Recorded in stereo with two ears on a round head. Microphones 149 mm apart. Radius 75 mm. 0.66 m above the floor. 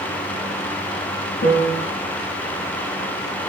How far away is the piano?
About 3 m.